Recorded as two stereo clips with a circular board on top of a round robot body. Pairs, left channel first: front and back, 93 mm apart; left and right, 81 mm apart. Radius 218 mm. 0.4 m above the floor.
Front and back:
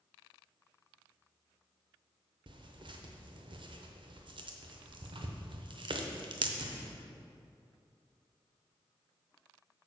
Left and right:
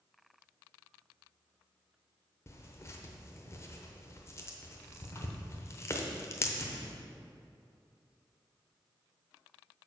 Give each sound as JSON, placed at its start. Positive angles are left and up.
{"t": 2.5, "sound": "tearing paper", "azimuth_deg": 145, "distance_m": 0.8}